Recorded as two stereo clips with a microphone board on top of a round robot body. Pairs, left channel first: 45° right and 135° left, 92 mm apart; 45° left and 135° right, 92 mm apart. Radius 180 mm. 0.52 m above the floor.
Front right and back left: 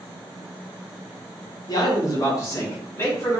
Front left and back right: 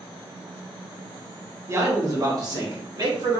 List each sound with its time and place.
1.7 s a man speaking: 80° right, 1.1 m; by 3.4 s 105° right, 1.9 m